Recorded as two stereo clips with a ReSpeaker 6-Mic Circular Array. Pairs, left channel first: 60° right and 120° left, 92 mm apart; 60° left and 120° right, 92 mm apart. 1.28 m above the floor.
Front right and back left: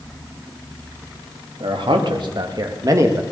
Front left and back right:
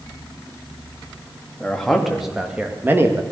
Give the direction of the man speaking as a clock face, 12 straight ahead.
7 o'clock.